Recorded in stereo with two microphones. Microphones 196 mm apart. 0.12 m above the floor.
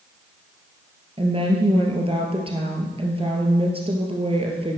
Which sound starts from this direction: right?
A woman speaking, at 1.2 s.